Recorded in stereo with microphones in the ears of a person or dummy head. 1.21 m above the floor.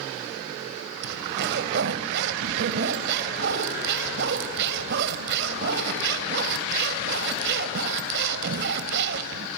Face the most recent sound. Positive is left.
turn(degrees=-60)  # may be behind; listen again after turning